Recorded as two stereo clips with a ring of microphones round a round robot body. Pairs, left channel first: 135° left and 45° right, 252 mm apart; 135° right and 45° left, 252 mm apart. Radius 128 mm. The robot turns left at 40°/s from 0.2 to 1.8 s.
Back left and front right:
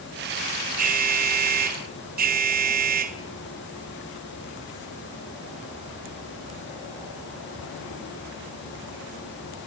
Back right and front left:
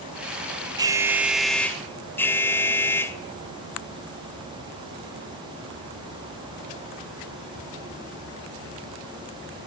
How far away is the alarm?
About 1.9 m.